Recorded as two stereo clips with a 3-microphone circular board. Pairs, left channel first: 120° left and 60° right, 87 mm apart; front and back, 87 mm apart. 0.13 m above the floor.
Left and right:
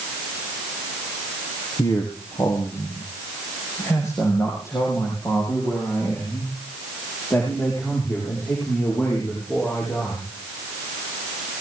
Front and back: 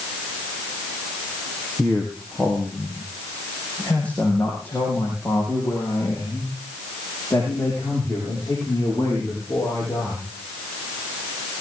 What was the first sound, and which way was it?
A man speaking, 85° left.